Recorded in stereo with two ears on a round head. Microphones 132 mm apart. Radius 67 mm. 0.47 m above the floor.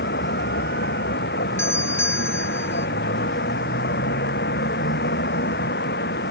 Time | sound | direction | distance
0.0 | a vehicle | 80° left | ?
1.6 | a doorbell | 15° left (ahead or behind) | ?